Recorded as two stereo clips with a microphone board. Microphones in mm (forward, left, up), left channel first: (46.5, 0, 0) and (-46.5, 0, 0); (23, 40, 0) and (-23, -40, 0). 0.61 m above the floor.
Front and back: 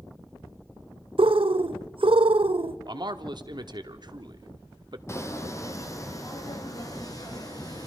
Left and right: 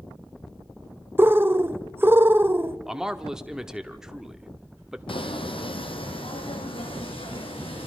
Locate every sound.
1.2 s a bird: 175° left, 0.6 m
2.9 s a man speaking: 160° left, 1.1 m
5.1 s footsteps: 55° left, 1.6 m; by 7.9 s 45° left, 3 m